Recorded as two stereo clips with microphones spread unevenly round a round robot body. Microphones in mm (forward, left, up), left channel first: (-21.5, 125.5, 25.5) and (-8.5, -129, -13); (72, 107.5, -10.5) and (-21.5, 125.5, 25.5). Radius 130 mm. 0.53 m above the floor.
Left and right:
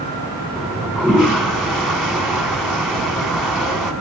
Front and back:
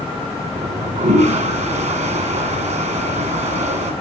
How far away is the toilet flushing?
About 2.5 m.